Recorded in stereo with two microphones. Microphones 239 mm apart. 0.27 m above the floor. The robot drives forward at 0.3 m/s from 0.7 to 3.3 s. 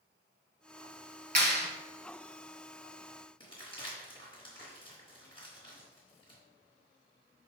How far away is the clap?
About 1.2 m.